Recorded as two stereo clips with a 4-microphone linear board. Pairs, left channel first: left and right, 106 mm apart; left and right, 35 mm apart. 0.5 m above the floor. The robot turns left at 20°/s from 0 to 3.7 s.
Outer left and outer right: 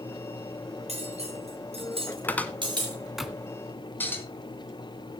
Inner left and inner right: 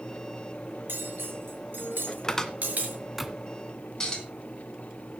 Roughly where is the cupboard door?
Centre.